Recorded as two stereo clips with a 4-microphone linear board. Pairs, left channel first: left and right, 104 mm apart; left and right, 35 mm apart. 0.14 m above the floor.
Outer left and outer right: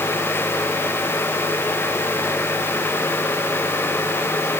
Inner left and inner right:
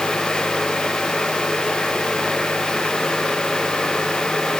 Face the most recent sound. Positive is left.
No sound to turn to.